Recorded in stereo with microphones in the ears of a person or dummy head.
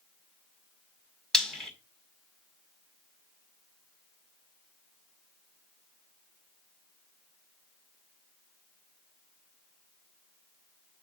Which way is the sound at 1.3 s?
10° left (ahead or behind).